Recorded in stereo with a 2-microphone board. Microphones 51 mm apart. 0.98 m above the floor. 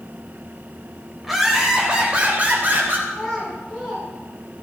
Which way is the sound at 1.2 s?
5° right (ahead or behind).